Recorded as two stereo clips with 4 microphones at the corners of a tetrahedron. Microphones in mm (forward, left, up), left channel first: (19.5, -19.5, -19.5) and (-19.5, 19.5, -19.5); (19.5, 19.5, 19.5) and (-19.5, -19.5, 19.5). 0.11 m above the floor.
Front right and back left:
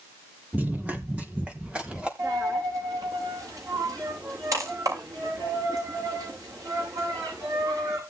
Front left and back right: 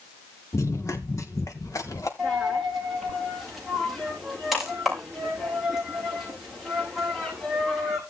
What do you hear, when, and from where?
0.5 s running footsteps: 75° left, 3 m; by 2.1 s 65° left, 3.5 m
2.2 s a dropped coin: 140° left, 7 m